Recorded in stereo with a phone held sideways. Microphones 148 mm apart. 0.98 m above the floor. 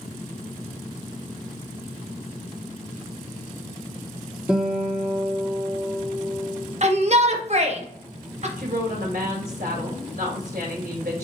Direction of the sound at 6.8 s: 50° right (ahead or behind).